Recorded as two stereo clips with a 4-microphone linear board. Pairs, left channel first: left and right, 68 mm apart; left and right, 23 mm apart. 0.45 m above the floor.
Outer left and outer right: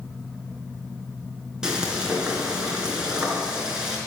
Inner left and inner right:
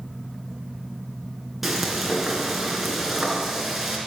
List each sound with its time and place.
1.6 s frying: 10° right (ahead or behind), 3.5 m